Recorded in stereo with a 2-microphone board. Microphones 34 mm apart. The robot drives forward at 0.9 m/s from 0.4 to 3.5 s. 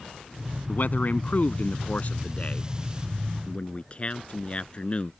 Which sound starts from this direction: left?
A man speaking, at 0.7 s.